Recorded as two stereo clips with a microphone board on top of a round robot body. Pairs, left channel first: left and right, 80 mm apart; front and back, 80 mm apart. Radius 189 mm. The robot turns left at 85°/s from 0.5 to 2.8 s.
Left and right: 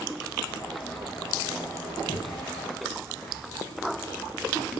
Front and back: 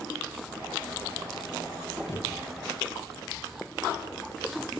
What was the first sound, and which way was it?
A thud, 60° left.